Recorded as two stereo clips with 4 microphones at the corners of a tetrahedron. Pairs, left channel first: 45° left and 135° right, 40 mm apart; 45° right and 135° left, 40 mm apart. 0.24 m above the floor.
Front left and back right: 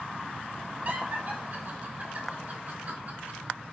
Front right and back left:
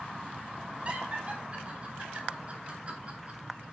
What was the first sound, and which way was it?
Laughter, 175° right.